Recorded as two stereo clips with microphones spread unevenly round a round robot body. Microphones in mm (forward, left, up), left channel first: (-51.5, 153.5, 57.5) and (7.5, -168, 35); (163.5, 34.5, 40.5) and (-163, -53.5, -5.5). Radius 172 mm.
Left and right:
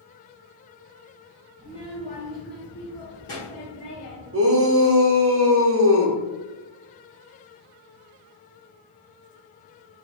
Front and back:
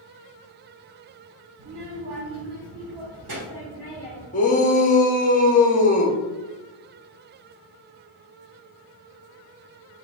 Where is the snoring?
I don't hear snoring.